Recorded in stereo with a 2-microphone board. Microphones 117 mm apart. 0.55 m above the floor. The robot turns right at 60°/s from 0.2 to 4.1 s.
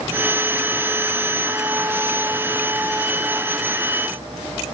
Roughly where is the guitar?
No guitar in this recording.